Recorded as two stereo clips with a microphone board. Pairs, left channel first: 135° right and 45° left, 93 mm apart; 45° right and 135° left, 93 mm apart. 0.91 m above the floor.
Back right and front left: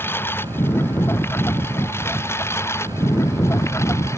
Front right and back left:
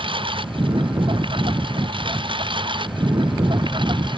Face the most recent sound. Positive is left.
turn(degrees=165)